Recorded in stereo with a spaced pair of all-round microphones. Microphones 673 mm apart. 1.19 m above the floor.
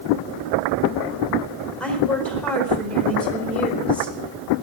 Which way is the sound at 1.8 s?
Centre (ahead or behind).